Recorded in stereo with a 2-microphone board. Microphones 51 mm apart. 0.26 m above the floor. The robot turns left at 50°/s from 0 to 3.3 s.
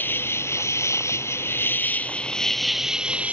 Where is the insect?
130° left; by 3.3 s 35° right.